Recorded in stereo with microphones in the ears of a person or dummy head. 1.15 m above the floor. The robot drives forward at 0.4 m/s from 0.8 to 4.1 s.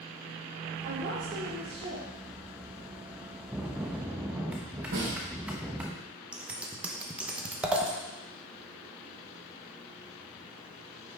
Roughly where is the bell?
Centre.